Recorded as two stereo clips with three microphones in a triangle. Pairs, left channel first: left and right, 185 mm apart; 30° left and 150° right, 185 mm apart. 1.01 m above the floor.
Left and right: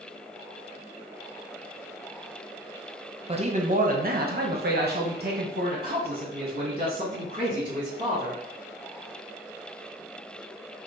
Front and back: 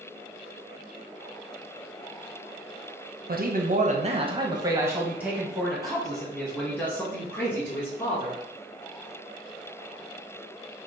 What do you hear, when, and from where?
3.3 s a man speaking: 140° right, 0.8 m; by 8.4 s 45° right, 3 m